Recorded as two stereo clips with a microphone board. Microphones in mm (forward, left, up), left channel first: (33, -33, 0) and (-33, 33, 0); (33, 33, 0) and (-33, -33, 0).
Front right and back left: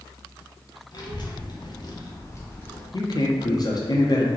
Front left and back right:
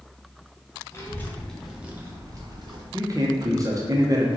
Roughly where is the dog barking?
No dog barking in this recording.